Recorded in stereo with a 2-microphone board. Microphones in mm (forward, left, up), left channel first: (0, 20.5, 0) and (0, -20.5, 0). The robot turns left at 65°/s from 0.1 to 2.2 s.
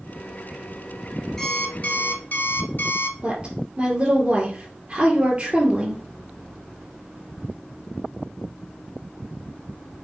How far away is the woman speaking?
About 3 m.